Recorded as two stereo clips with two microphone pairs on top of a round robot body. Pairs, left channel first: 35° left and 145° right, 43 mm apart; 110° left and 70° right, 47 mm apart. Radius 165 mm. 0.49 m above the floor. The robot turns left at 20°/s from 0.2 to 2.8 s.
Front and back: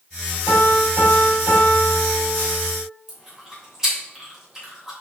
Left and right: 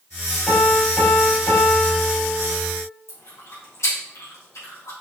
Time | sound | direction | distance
0.5 | a piano | 165° right | 3 m
3.1 | chewing | 130° left | 3 m